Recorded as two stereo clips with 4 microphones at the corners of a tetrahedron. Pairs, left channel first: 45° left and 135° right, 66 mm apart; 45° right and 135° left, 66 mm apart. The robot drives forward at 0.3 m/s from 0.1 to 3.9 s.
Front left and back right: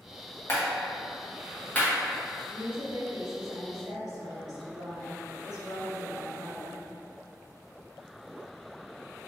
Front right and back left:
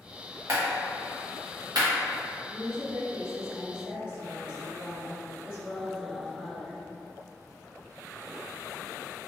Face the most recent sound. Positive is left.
turn(degrees=-155)